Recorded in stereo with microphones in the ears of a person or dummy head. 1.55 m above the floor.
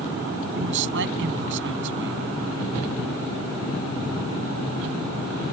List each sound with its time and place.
0.6 s a man speaking: 70° right (ahead or behind)